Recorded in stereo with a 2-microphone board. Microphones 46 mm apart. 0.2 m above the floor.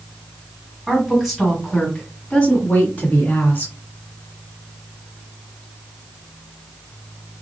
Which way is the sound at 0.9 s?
5° right (ahead or behind).